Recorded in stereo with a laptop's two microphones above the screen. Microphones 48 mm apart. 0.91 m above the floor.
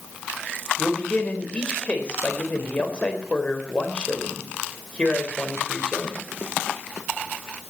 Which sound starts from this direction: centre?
A man speaking, at 0.8 s.